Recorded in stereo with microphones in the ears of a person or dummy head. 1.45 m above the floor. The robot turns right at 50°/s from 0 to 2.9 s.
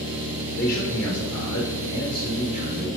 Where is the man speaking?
35° left, 2 m; by 2.9 s 155° left, 2 m.